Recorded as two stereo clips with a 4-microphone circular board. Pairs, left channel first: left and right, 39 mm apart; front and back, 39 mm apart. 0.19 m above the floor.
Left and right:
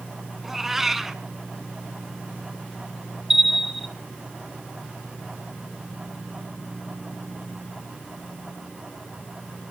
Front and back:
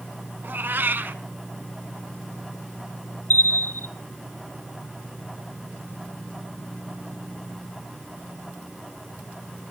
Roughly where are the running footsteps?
No running footsteps in this recording.